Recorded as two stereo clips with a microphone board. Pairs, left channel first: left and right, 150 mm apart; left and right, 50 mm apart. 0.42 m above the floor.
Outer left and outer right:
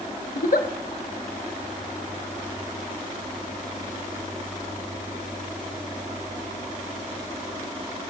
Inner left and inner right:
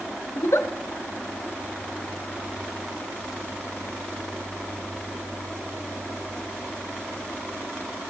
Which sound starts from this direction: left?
A giggle, at 0.3 s.